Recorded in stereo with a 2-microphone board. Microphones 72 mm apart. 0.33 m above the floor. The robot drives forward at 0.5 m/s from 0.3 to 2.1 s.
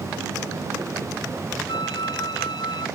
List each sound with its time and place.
1.7 s a flute: 75° left (ahead or behind); by 2.9 s 70° left (ahead or behind)